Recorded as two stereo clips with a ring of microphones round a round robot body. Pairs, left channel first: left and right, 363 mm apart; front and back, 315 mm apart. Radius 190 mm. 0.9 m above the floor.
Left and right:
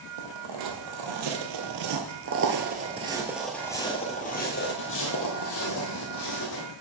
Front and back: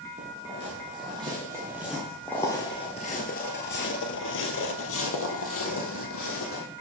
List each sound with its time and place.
0.2 s footsteps: 110° right, 1.8 m; by 6.6 s 45° left, 2 m